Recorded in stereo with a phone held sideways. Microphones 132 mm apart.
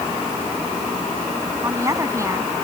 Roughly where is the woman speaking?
Right.